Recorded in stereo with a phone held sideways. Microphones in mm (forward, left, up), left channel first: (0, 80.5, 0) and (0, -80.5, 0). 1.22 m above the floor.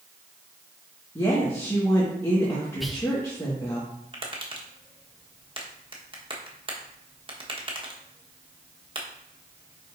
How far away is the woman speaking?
About 1.6 m.